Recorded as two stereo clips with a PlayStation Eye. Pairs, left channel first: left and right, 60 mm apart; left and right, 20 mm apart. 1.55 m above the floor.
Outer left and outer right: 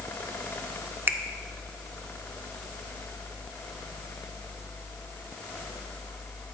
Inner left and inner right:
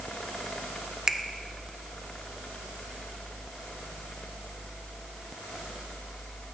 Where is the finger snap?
35° right (ahead or behind), 0.6 m.